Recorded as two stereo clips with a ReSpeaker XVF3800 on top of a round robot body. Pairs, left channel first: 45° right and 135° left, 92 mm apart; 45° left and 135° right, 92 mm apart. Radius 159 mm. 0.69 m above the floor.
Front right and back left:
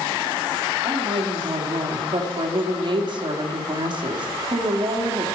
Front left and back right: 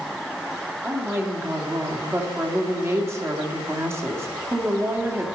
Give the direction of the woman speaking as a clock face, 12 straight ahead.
7 o'clock.